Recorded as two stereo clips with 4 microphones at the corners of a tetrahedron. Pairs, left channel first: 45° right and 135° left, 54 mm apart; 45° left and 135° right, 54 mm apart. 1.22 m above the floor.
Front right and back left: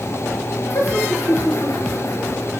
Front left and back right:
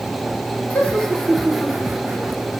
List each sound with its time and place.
0.7 s laughter: 20° right, 3.5 m; by 2.5 s 70° right, 3.5 m